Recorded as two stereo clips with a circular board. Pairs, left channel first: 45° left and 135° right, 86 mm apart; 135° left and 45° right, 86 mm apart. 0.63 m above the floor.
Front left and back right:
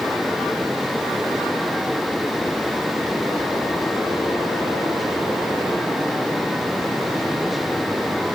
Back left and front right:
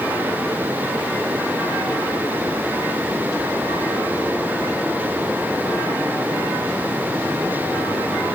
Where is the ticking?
I don't hear ticking.